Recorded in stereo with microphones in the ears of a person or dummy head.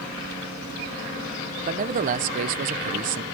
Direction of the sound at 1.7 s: 55° right (ahead or behind).